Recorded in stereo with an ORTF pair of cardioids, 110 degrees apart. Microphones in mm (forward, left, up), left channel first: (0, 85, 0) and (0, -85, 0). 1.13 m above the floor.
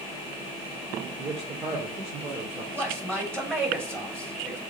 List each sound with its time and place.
1.2 s a man speaking: 35° right, 3 m
2.7 s a man speaking: 15° right, 3.5 m